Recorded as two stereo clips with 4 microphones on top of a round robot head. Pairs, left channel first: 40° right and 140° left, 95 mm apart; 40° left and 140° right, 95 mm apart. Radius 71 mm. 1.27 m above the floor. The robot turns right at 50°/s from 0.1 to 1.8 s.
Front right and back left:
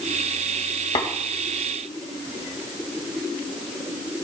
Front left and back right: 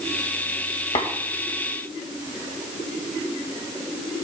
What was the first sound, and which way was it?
Tapping, straight ahead.